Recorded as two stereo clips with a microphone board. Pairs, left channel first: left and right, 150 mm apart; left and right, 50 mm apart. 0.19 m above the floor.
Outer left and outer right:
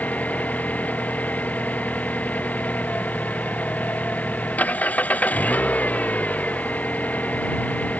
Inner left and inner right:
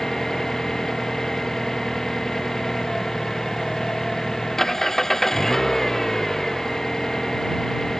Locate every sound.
0.0 s an engine running: 10° left (ahead or behind)